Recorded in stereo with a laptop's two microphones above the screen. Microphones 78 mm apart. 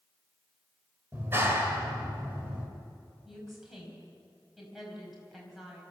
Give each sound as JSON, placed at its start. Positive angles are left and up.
{"t": 1.1, "sound": "a clap", "side_deg": -30, "distance_m": 3.0}
{"t": 3.2, "sound": "a woman speaking", "side_deg": -5, "distance_m": 5.0}